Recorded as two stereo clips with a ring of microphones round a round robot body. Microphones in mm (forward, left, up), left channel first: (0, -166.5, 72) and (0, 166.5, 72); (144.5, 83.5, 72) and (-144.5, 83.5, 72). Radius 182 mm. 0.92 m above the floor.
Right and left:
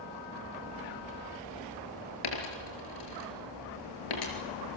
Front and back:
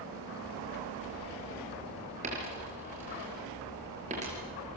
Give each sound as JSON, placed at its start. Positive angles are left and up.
{"t": 2.2, "sound": "a dropped coin", "azimuth_deg": -110, "distance_m": 5.0}